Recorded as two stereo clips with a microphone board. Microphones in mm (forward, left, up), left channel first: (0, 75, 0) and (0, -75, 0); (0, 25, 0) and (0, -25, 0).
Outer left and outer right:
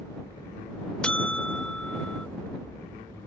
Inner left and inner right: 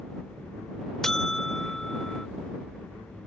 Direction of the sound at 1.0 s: 5° left (ahead or behind).